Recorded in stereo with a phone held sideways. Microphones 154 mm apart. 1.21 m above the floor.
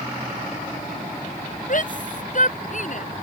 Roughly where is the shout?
Left.